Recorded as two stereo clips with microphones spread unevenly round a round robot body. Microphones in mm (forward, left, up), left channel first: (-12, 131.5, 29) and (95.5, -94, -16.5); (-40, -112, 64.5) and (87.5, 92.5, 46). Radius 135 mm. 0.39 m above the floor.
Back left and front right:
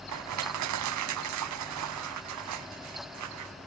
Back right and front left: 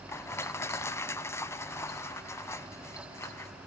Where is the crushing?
45° right, 0.6 m.